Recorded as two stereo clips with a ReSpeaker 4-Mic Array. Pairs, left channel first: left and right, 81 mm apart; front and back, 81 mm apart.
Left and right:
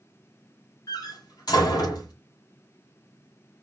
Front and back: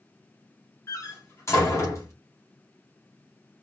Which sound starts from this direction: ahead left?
A door slam, at 0.9 s.